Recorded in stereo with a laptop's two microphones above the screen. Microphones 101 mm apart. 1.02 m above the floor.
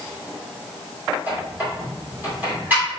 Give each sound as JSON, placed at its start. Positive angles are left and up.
{"t": 1.3, "sound": "a squeak", "side_deg": -20, "distance_m": 2.0}